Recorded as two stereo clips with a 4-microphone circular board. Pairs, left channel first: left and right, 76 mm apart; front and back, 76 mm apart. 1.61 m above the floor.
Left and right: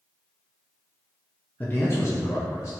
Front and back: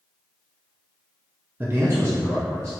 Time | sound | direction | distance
1.6 | a man speaking | 145° left | 0.5 m